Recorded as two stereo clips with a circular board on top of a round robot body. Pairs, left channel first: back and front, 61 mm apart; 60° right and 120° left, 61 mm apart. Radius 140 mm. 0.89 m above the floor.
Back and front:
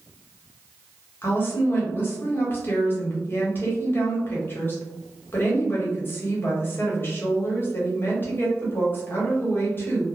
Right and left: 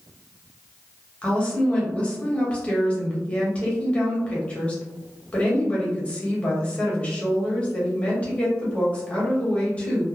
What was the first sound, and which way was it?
A woman speaking, 130° right.